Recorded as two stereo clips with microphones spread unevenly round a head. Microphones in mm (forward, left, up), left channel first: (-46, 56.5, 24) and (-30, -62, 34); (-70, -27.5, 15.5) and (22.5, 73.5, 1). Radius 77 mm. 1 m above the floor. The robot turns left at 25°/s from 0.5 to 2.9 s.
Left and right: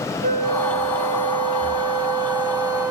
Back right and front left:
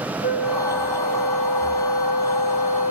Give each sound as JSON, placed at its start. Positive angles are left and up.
{"t": 0.2, "sound": "a flute", "azimuth_deg": -95, "distance_m": 1.3}